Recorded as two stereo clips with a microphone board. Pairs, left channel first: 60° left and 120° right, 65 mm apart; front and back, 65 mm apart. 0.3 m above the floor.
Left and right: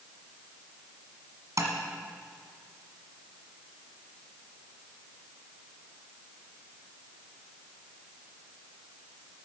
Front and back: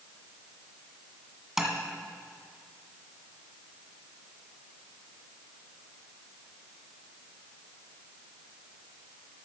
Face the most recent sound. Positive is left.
turn(degrees=-95)